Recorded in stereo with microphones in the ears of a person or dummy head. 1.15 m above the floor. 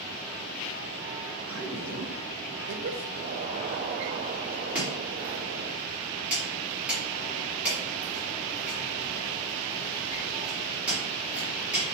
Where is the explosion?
30° right (ahead or behind), 0.6 m.